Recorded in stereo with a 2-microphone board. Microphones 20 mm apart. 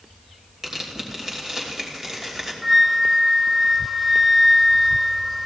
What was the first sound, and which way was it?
Tearing paper, 25° right (ahead or behind).